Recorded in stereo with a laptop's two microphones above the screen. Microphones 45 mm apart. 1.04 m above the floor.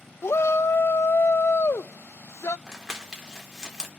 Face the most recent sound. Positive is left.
turn(degrees=-15)  # may be behind; listen again after turning